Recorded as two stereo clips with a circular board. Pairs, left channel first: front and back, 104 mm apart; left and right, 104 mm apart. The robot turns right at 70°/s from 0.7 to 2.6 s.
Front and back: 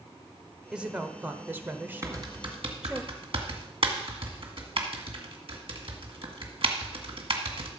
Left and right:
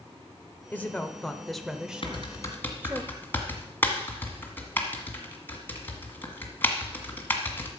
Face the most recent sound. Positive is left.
turn(degrees=160)